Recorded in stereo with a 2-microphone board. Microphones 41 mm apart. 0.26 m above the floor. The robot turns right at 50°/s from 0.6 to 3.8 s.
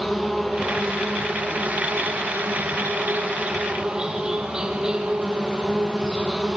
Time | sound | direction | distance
0.0 | an insect | straight behind | 3 m